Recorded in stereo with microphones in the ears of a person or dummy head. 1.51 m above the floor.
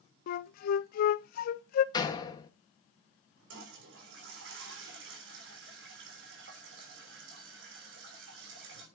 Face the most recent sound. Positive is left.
turn(degrees=-80)